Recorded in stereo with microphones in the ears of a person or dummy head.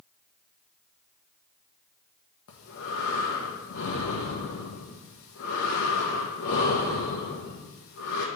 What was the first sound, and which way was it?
Breathing, 70° left (ahead or behind).